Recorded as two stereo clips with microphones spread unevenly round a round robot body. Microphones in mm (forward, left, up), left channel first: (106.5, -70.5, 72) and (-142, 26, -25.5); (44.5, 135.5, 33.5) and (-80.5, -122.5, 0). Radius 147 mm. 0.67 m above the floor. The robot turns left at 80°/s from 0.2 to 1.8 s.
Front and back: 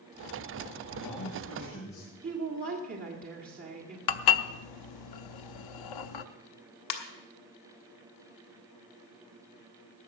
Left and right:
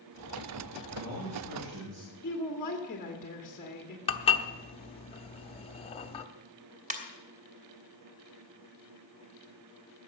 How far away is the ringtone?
About 1.5 m.